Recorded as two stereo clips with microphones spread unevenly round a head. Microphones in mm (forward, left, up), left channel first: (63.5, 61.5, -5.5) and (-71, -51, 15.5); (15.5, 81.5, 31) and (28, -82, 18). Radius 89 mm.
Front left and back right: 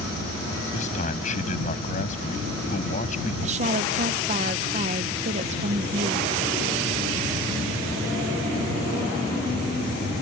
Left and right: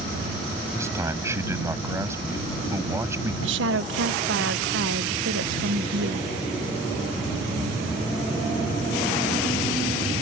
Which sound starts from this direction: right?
A woman speaking, at 3.4 s.